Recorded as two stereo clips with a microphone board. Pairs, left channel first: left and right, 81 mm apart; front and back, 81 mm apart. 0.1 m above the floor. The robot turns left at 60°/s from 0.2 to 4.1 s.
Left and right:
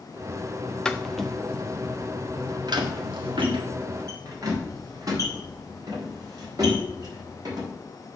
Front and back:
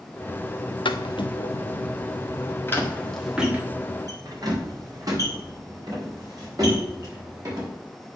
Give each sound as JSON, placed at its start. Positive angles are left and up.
{"t": 0.8, "sound": "footsteps", "azimuth_deg": 5, "distance_m": 0.7}